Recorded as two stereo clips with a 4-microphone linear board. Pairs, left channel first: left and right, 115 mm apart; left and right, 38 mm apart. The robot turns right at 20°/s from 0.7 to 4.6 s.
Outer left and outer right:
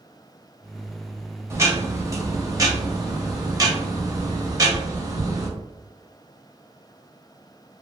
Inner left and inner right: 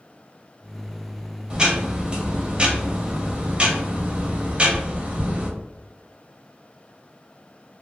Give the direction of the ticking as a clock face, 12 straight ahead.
4 o'clock.